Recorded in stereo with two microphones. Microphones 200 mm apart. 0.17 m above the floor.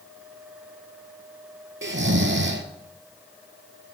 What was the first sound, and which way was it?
Snoring, 75° right (ahead or behind).